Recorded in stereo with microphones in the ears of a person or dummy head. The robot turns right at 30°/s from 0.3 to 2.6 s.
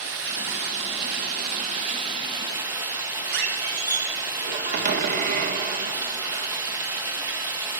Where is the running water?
85° right, 2 m; by 7.8 s 15° right, 2 m.